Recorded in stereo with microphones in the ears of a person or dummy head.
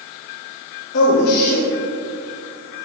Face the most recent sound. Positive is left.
turn(degrees=60)  # may be behind; listen again after turning